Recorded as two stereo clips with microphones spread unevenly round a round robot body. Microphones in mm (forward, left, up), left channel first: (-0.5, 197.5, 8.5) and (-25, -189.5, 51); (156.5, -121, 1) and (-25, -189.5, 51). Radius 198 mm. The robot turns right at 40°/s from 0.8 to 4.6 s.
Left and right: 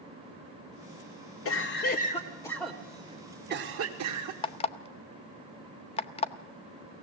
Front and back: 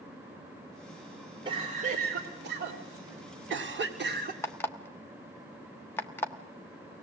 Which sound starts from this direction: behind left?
A cough, at 1.4 s.